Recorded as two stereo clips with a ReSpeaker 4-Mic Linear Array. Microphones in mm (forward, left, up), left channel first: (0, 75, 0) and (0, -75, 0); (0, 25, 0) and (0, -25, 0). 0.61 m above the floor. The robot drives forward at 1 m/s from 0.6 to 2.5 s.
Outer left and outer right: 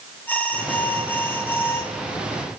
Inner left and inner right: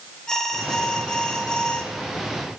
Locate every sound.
0.3 s an alarm: 10° left (ahead or behind), 4.5 m; by 1.9 s 15° left (ahead or behind), 3.5 m